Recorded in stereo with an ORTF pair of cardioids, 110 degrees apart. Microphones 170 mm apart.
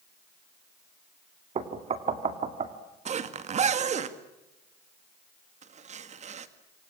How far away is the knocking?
About 2.5 m.